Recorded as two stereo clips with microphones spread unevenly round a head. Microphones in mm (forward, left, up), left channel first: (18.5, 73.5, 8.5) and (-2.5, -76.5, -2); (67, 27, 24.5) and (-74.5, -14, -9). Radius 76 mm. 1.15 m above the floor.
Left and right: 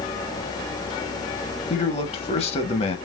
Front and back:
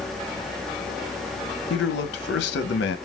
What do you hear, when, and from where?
1.7 s a man speaking: 30° left, 1.1 m